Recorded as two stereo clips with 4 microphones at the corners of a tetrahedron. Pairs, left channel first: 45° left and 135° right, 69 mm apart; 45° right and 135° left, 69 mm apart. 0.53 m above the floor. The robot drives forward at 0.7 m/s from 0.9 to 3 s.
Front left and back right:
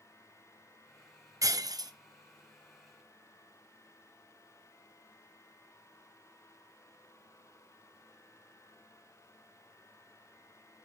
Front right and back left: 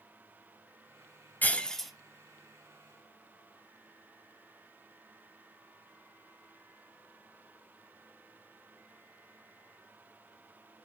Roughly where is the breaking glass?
Right.